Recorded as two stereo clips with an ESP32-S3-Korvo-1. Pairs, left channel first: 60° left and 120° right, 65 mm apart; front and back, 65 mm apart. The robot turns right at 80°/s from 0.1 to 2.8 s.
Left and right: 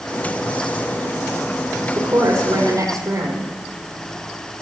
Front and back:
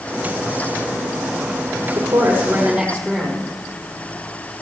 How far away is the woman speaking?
About 5.5 m.